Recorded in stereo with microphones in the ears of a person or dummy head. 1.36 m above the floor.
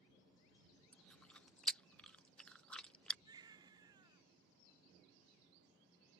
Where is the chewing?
Centre (ahead or behind).